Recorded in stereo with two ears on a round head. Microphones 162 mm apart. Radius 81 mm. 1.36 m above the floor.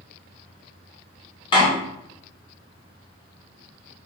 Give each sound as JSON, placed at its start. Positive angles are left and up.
{"t": 1.5, "sound": "a door slam", "side_deg": 25, "distance_m": 3.0}